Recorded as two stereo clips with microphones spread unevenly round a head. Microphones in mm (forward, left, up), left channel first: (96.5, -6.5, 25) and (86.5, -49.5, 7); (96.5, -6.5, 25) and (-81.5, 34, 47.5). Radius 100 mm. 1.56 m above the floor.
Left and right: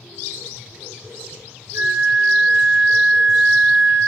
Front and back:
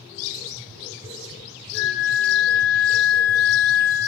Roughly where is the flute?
Behind right.